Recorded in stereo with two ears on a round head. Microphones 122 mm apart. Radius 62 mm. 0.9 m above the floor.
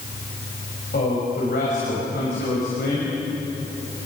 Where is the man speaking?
75° left (ahead or behind), 6 m.